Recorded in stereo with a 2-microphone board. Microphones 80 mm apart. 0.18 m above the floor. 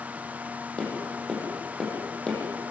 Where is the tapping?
10° left (ahead or behind), 8 m.